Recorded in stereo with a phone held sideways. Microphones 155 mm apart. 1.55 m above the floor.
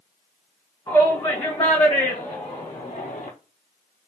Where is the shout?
20° left (ahead or behind), 2.0 m; by 3.3 s 55° left (ahead or behind), 0.7 m.